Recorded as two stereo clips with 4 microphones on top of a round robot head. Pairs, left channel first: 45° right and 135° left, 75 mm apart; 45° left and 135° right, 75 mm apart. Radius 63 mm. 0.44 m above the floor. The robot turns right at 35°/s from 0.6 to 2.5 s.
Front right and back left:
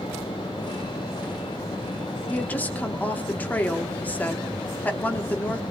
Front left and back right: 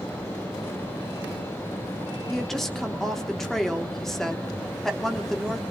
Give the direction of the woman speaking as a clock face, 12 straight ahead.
1 o'clock.